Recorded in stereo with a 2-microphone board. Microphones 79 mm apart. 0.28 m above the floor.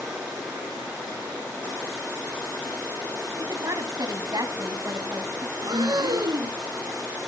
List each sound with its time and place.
3.4 s a woman speaking: 55° right (ahead or behind), 2 m
5.6 s breathing: 65° right (ahead or behind), 0.8 m